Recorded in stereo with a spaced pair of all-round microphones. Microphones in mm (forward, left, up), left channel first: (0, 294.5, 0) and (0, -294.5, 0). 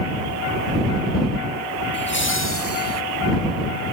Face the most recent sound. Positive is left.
turn(degrees=25)  # may be behind; listen again after turning